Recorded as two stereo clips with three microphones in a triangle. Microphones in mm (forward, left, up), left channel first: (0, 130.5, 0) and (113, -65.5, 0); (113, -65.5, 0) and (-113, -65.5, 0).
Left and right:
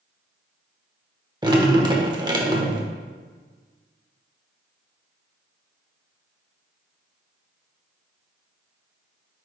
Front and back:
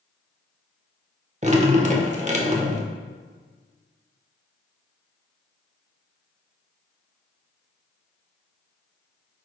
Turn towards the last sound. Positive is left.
turn(degrees=-125)